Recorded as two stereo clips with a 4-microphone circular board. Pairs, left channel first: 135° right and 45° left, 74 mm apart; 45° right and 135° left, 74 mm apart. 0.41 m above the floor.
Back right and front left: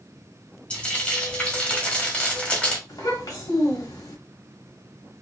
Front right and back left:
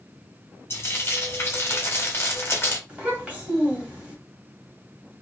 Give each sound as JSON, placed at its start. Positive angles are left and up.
{"t": 0.7, "sound": "frying", "azimuth_deg": -75, "distance_m": 1.1}
{"t": 2.9, "sound": "a child speaking", "azimuth_deg": -155, "distance_m": 1.6}